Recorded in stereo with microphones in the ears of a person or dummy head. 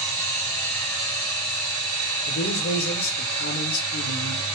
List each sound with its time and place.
0.0 s a machine running: 15° left (ahead or behind), 1.0 m
2.3 s a man speaking: 65° left (ahead or behind), 1.0 m